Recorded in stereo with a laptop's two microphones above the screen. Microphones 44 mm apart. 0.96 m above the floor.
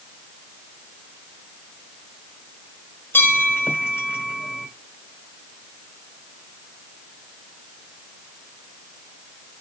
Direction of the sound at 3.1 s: 60° left (ahead or behind).